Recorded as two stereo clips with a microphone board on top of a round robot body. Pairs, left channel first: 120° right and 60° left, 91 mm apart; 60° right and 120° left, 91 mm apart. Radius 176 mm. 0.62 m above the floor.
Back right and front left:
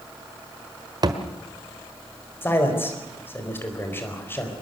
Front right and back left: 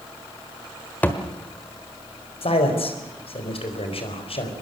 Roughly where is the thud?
Ahead.